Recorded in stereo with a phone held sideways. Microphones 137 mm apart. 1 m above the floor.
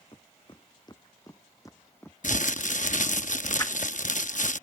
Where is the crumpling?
65° left (ahead or behind).